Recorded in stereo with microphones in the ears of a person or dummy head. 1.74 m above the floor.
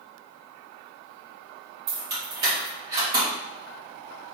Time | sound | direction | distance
1.9 | keys jangling | 25° right (ahead or behind) | 1.7 m